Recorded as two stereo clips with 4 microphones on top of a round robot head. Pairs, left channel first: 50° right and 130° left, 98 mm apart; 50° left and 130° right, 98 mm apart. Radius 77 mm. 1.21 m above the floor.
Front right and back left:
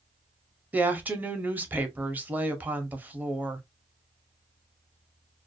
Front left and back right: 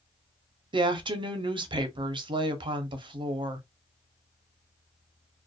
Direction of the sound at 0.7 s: 155° right.